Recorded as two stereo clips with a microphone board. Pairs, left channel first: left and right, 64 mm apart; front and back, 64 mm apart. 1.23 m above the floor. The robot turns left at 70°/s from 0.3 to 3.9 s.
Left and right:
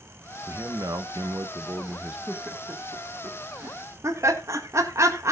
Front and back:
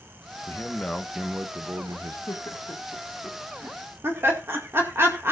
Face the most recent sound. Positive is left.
turn(degrees=-130)